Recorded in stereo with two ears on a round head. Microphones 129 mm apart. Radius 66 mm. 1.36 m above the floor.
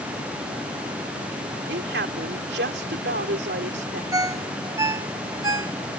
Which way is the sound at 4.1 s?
20° right (ahead or behind).